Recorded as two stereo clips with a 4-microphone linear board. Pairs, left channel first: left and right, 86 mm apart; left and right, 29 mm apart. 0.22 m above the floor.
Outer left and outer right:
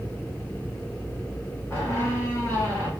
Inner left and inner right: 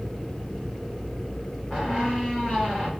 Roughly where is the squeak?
Left.